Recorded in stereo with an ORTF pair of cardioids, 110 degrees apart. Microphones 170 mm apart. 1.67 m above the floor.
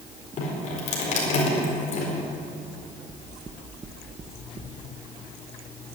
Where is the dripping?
45° left, 4.5 m.